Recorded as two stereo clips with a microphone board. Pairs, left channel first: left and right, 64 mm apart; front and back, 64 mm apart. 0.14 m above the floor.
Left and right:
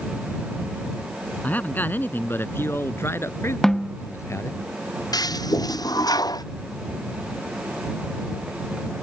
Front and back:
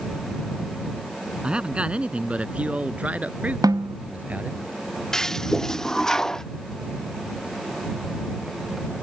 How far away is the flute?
I don't hear a flute.